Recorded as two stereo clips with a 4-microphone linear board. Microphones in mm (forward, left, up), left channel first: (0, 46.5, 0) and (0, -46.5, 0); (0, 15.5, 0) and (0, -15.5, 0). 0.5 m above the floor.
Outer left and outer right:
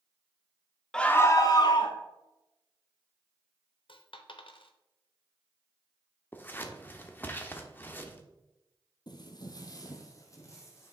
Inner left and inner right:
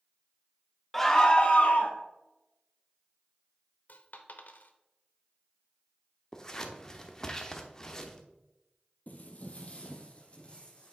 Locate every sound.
0.9 s a scream: 5° left (ahead or behind), 0.7 m; by 2.0 s 60° left (ahead or behind), 1.3 m
3.9 s a dropped coin: 65° left (ahead or behind), 0.7 m
6.3 s scissors: 20° left (ahead or behind), 0.8 m
9.1 s footsteps: 50° left (ahead or behind), 0.8 m; by 10.9 s 30° left (ahead or behind), 1.6 m